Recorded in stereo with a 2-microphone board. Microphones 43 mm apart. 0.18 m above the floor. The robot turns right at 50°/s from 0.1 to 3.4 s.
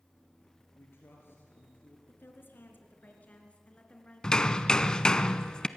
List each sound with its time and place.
0.8 s a man speaking: 75° left, 3 m; by 2.0 s 135° left, 3 m
2.1 s a woman speaking: 75° left, 3 m; by 5.2 s 145° left, 3 m
4.2 s hammering: 20° left (ahead or behind), 0.7 m